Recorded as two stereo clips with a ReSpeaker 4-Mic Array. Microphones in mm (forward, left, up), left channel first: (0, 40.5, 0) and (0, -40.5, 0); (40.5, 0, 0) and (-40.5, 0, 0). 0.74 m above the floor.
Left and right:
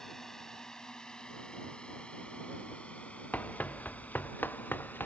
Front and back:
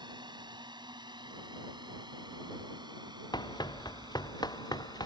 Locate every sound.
0.0 s a drone: 175° left; by 5.1 s 155° left
3.3 s running footsteps: 20° left; by 5.1 s 25° left